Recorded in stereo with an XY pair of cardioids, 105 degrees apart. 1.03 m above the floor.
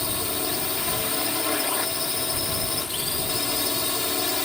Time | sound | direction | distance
0.0 | a drone | 15° left | ?